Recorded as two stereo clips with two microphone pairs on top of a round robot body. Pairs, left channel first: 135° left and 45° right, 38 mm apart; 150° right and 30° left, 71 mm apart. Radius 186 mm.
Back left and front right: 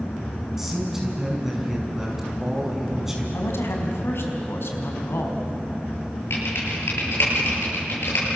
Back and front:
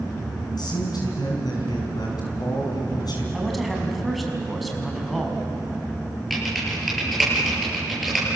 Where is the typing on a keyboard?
120° left, 9 m.